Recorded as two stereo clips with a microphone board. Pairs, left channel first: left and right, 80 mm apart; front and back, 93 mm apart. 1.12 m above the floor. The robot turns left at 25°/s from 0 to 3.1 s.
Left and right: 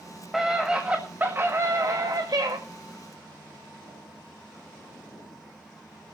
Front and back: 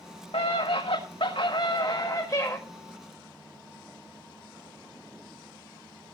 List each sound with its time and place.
0.3 s a scream: 5° right, 1.4 m; by 2.6 s 60° right, 1.4 m